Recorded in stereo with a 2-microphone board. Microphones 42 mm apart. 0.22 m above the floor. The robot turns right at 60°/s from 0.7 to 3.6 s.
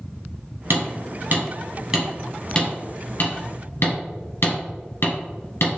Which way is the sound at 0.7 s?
70° right (ahead or behind).